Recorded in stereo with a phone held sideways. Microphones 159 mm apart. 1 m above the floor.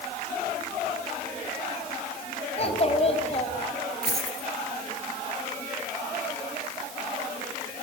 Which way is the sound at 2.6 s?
40° left (ahead or behind).